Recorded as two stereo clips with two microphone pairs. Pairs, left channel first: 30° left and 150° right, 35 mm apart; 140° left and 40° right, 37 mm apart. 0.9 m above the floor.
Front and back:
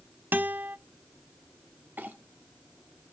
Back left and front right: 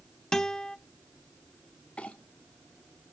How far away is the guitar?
About 0.8 m.